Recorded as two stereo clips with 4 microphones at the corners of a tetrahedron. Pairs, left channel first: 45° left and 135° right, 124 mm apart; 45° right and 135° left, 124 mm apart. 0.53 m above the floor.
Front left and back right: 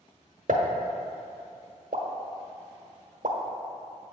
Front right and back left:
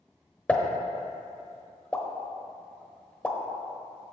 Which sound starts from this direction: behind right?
A pop, at 0.5 s.